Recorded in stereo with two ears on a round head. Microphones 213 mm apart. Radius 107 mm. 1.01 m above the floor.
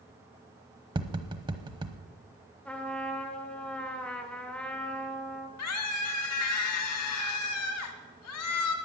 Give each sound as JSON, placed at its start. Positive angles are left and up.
{"t": 0.9, "sound": "tapping", "side_deg": -20, "distance_m": 1.0}
{"t": 2.6, "sound": "a trumpet", "side_deg": 5, "distance_m": 1.5}
{"t": 5.6, "sound": "a scream", "side_deg": 75, "distance_m": 2.0}